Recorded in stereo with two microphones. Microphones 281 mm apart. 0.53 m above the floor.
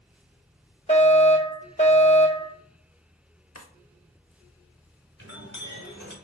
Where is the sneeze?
I don't hear a sneeze.